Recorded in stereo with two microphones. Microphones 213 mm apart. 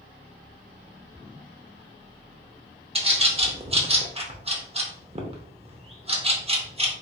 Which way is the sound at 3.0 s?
30° right (ahead or behind).